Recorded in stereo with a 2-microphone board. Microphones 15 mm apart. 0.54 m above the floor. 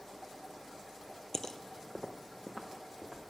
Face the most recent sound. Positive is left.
turn(degrees=10)  # may be behind; listen again after turning